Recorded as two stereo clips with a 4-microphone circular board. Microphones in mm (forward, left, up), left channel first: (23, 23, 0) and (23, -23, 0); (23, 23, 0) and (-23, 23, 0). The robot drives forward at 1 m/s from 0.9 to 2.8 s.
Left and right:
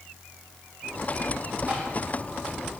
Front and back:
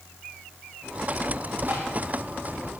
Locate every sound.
1.7 s tapping: 140° right, 8 m